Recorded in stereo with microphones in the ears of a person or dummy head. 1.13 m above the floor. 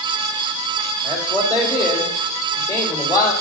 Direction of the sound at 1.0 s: 25° left (ahead or behind).